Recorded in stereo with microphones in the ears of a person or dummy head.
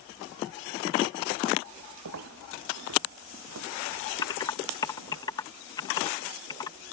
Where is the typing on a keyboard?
20° left (ahead or behind).